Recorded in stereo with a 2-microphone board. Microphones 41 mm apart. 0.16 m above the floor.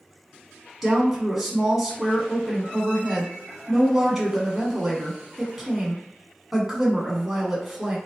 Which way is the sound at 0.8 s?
5° right (ahead or behind).